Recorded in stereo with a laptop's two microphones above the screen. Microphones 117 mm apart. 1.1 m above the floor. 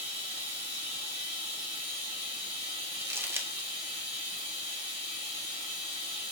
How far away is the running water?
About 2.0 m.